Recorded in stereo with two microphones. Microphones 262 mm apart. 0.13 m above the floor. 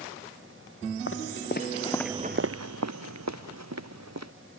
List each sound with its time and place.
1.1 s footsteps: 50° left (ahead or behind); by 4.3 s 80° right